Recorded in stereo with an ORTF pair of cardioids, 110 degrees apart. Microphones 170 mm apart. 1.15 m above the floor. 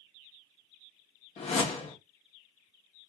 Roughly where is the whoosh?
Ahead left.